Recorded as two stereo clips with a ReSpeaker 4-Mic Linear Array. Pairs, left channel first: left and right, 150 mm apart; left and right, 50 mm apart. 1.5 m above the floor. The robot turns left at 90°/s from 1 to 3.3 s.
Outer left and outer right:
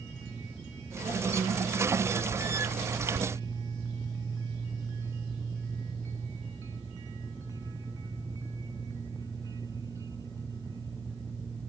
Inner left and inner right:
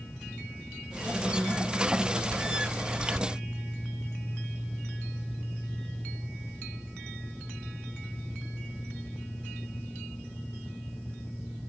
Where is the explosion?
I don't hear an explosion.